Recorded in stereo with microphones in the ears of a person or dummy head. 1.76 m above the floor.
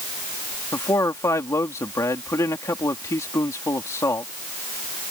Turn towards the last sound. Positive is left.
turn(degrees=10)  # may be behind; listen again after turning